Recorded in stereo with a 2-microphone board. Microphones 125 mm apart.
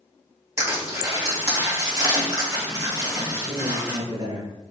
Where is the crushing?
25° right (ahead or behind), 1.7 m.